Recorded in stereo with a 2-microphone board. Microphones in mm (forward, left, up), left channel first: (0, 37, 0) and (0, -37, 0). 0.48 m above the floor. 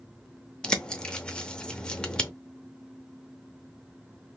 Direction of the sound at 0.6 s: 15° left (ahead or behind).